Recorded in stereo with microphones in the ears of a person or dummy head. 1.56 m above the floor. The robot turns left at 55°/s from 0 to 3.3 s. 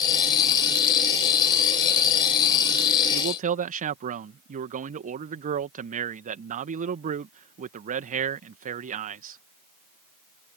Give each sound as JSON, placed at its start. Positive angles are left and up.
{"t": 3.1, "sound": "a man speaking", "side_deg": -55}